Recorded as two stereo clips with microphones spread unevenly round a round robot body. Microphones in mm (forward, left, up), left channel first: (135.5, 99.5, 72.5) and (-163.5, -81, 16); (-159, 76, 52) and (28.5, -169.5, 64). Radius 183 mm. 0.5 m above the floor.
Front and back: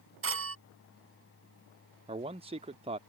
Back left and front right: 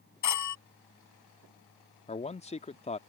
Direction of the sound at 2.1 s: 175° left.